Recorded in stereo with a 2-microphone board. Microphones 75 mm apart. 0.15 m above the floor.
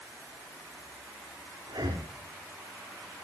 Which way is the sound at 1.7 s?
65° right (ahead or behind).